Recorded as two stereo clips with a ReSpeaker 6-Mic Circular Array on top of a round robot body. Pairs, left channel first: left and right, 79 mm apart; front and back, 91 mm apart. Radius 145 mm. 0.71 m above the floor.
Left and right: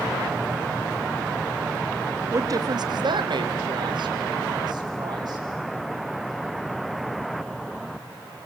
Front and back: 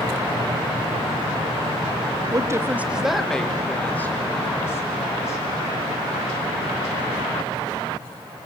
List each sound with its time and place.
2.3 s a woman speaking: 135° right, 1.4 m; by 5.4 s 60° right, 4.5 m